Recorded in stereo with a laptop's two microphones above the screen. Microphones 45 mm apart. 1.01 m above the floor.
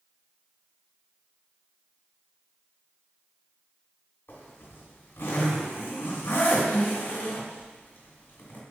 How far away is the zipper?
About 2.5 m.